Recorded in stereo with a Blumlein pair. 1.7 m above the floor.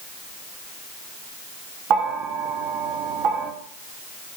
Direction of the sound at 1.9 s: 35° right.